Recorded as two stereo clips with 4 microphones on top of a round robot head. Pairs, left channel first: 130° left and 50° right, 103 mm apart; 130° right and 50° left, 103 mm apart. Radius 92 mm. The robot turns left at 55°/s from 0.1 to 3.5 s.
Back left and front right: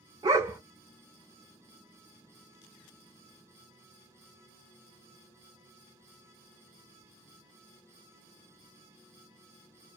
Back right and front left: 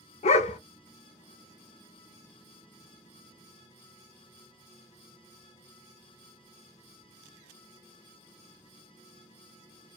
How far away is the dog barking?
About 0.6 m.